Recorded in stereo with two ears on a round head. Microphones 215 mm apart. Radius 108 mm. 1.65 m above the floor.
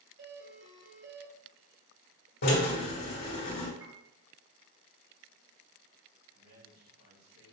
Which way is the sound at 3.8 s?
15° right (ahead or behind).